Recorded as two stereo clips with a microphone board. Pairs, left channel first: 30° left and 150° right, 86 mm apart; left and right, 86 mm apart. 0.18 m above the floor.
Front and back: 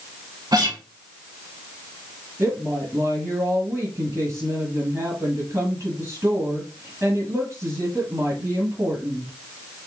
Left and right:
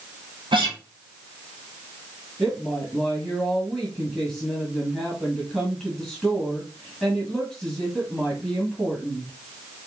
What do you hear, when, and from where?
0.5 s a guitar: 110° right, 2 m
2.4 s a woman speaking: 175° right, 2.0 m